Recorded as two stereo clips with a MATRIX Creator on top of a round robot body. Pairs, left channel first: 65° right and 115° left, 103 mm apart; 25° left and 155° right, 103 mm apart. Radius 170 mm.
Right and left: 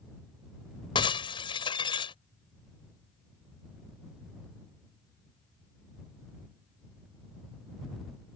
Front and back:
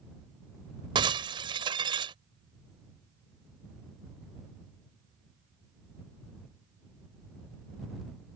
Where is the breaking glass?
110° right.